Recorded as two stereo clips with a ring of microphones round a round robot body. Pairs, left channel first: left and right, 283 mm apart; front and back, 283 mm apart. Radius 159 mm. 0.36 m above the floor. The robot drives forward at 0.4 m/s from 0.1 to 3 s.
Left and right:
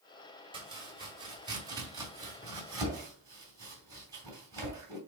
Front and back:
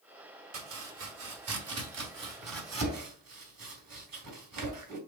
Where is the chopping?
160° right, 2.0 m; by 5.0 s 170° right, 3 m.